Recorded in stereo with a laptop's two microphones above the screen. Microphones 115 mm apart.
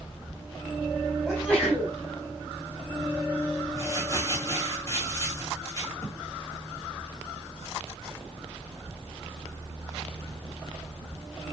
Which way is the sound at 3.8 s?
25° left (ahead or behind).